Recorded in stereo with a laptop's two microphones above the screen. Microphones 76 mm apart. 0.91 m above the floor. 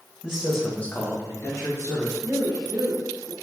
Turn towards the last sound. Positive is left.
turn(degrees=-55)  # may be behind; listen again after turning